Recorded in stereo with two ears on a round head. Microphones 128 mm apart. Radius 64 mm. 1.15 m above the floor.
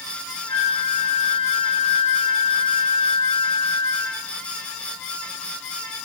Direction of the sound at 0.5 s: 75° left (ahead or behind).